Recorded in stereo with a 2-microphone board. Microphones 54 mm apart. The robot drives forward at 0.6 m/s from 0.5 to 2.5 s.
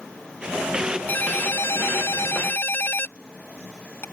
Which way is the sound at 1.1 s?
35° left (ahead or behind).